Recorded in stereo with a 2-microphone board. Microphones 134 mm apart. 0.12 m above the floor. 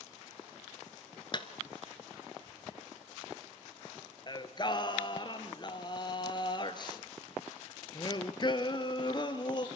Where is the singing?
35° left (ahead or behind), 1.2 m.